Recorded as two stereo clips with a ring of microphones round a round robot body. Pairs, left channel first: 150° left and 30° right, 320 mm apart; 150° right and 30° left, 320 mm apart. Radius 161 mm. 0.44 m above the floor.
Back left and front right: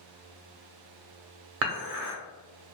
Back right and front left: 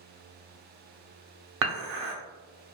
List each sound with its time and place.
1.6 s dishes clattering: straight ahead, 0.7 m